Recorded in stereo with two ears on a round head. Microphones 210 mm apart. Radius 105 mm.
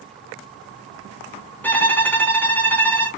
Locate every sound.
1.6 s a violin: 10° left (ahead or behind), 0.8 m